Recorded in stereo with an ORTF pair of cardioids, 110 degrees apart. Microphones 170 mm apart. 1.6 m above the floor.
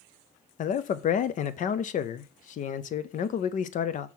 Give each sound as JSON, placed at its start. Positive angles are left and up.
{"t": 0.6, "sound": "a man speaking", "azimuth_deg": 50, "distance_m": 0.7}